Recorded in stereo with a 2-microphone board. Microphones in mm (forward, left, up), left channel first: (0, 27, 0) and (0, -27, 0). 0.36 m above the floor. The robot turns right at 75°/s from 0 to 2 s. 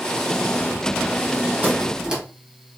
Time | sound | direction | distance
1.6 | a squeak | 40° right (ahead or behind) | 1.1 m